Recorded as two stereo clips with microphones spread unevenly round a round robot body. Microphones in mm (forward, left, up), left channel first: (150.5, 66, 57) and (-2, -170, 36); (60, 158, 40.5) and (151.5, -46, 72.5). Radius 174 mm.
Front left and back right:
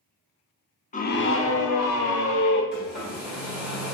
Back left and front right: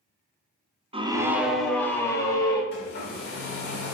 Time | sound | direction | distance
0.9 | a scream | straight ahead | 1.0 m
2.7 | a hair dryer | 150° left | 1.5 m